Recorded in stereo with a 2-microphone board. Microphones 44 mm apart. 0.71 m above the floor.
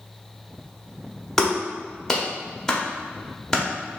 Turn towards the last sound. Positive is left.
turn(degrees=10)  # may be behind; listen again after turning